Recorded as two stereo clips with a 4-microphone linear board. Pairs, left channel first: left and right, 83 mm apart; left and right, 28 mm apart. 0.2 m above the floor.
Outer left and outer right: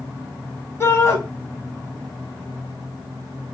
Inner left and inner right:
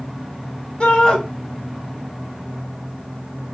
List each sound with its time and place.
0.8 s a shout: 35° left (ahead or behind), 1.1 m